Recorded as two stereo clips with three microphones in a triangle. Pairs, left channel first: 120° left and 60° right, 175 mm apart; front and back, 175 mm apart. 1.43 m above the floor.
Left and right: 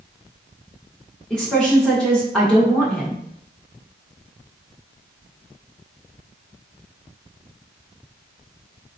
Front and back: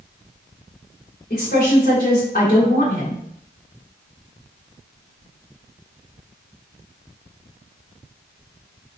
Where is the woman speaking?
35° left, 1.0 m.